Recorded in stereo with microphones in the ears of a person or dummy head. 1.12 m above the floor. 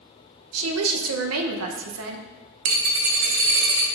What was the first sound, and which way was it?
A woman speaking, 80° right.